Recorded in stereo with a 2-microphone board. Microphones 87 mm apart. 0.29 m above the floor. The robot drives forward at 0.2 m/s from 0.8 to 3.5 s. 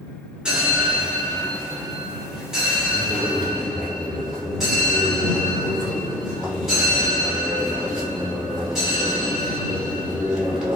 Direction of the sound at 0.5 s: 10° right (ahead or behind).